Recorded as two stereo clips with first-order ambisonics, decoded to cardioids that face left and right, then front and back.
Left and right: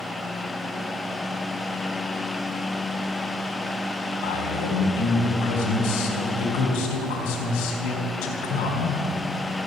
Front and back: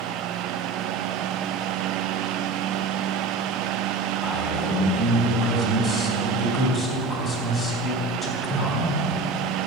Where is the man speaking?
85° left, 3.5 m.